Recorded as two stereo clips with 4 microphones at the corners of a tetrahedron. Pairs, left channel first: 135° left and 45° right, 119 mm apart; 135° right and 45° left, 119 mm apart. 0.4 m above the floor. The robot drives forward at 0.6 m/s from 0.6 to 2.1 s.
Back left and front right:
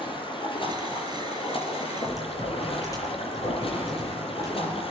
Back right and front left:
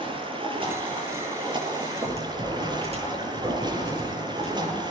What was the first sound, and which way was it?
Running water, 90° left.